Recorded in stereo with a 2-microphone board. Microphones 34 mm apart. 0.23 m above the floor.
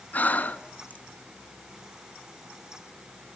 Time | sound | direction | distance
0.1 | breathing | 55° left (ahead or behind) | 0.9 m